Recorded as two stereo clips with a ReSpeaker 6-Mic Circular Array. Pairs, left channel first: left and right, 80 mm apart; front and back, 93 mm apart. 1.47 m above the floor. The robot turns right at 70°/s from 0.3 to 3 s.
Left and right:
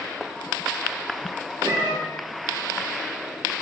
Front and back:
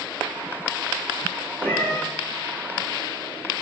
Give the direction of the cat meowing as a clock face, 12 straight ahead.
2 o'clock.